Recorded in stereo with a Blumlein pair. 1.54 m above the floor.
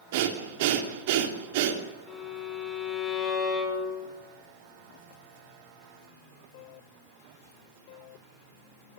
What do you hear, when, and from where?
0.1 s breathing: 50° right, 3 m
2.1 s a violin: 25° left, 5.5 m